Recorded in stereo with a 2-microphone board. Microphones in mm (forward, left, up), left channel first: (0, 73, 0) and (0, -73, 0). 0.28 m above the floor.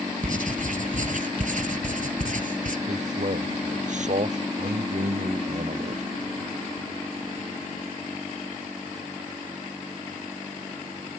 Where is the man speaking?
55° right (ahead or behind).